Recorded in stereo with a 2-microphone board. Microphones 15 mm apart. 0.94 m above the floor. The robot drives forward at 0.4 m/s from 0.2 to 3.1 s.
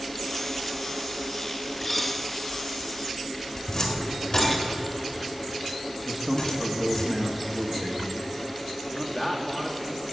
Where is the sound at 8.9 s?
15° left (ahead or behind), 1.8 m.